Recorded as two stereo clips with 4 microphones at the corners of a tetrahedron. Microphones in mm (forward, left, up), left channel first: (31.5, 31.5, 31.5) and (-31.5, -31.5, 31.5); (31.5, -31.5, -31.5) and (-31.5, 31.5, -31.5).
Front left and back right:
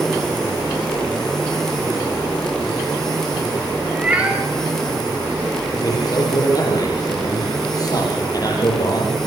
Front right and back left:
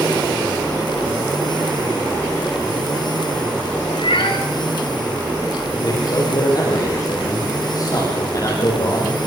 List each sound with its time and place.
3.9 s a cat meowing: 60° right, 5.5 m
5.8 s a man speaking: straight ahead, 7 m